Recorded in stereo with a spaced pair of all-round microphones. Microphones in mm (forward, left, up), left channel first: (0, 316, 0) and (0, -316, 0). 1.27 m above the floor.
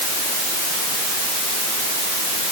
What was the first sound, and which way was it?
Only background noise.